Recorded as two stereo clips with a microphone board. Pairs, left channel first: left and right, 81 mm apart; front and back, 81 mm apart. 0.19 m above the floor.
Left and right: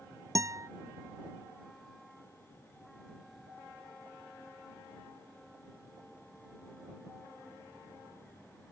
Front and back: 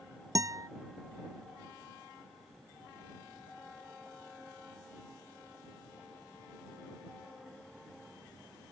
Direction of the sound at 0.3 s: 135° right.